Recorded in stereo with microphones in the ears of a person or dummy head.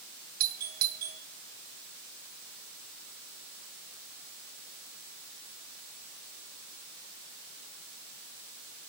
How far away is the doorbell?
About 0.9 m.